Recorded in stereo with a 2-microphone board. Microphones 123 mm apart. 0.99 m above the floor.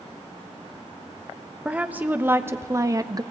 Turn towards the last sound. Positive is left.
turn(degrees=-30)  # may be behind; listen again after turning